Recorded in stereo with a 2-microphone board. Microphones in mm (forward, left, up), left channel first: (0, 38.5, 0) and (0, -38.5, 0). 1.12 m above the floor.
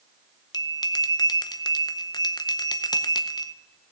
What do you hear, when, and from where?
0.5 s a bell: 60° left (ahead or behind), 0.7 m